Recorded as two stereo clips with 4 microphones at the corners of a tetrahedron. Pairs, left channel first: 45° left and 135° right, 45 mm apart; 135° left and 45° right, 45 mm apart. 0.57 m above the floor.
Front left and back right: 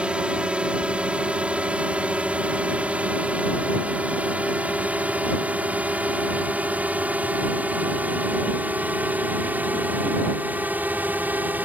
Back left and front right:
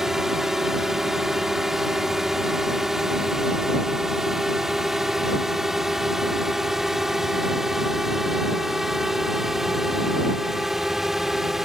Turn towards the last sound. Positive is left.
turn(degrees=-125)